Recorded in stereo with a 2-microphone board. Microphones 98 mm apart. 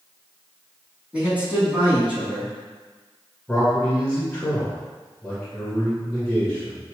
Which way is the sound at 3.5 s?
15° left (ahead or behind).